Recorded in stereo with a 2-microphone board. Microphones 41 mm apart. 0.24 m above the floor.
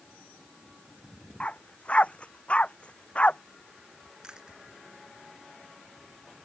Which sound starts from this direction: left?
A dog barking, at 1.4 s.